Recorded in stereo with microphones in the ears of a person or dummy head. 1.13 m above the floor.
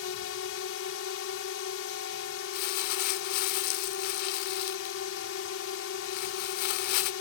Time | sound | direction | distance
0.0 | a drone | 70° left (ahead or behind) | ?
2.5 | crumpling | 55° left (ahead or behind) | ?